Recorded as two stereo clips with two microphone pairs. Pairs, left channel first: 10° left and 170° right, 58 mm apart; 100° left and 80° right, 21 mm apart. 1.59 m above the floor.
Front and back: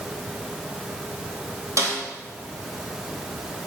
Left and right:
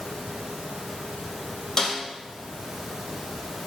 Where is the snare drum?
165° left, 4 m.